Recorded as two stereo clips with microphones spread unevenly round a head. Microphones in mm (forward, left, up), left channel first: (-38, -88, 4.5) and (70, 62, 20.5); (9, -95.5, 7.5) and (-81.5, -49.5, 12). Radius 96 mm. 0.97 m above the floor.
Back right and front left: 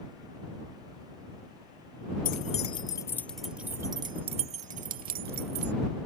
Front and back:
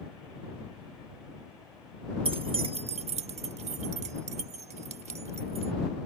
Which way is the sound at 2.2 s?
175° right.